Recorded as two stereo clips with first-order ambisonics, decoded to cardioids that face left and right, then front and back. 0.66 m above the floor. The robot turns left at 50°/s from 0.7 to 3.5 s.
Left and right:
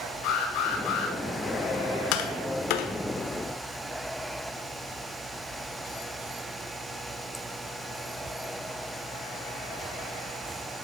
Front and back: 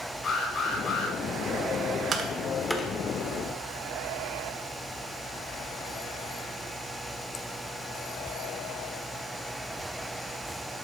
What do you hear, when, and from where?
0.2 s an alarm: 65° left, 6 m; by 1.1 s 40° left, 6 m
2.1 s tapping: 115° left, 1.4 m; by 2.9 s 75° left, 1.4 m